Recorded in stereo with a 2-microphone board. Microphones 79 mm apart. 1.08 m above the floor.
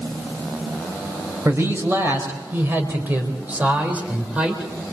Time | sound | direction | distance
1.4 | a man speaking | 35° right (ahead or behind) | 4.5 m